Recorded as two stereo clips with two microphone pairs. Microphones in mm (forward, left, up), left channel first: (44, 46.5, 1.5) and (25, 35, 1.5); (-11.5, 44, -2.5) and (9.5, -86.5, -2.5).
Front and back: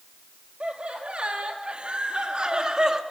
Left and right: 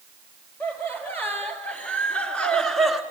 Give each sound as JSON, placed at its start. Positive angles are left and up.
{"t": 0.6, "sound": "laughter", "azimuth_deg": 175, "distance_m": 4.0}